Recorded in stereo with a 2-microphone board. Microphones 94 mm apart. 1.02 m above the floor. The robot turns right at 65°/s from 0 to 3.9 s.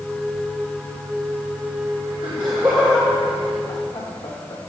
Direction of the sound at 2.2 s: 55° right (ahead or behind).